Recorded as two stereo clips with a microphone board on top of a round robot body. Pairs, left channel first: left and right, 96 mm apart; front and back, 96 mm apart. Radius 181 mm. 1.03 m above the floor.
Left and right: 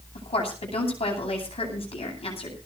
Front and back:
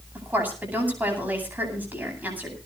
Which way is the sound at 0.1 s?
110° left.